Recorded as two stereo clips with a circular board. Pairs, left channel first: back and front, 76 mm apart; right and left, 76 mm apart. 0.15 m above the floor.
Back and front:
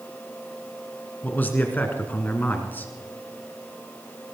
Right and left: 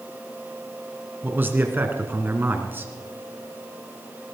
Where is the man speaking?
130° left, 1.9 m.